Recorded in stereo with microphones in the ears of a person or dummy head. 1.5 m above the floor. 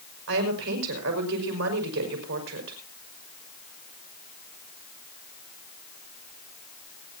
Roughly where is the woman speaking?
Right.